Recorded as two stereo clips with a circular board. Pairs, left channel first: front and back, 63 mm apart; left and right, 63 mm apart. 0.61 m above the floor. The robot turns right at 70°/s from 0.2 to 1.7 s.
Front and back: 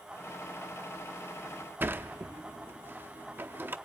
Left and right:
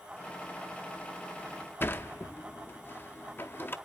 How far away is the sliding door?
About 0.5 m.